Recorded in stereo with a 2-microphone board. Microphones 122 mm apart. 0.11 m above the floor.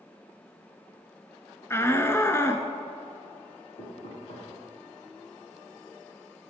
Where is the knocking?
55° left (ahead or behind), 6.5 m.